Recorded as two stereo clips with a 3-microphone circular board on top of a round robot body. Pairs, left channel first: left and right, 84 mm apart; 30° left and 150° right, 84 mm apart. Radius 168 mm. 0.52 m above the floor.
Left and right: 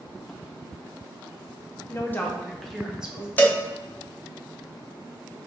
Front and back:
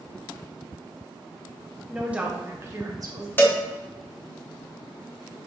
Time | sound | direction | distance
1.9 | a woman speaking | 130° left | 1.1 m
3.4 | a cowbell | 55° left | 0.9 m